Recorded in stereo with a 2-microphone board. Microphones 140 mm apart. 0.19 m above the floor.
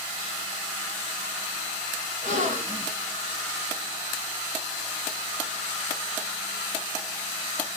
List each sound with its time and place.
2.2 s a gasp: 65° right (ahead or behind), 2.5 m